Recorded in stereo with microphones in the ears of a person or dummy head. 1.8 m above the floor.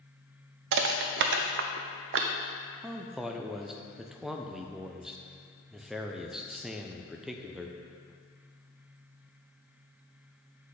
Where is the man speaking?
5° right (ahead or behind), 0.5 m.